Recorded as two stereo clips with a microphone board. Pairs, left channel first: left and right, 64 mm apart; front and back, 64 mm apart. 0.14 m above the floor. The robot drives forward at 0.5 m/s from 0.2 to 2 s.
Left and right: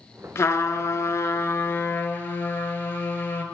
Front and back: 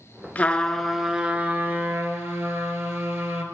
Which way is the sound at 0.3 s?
60° left.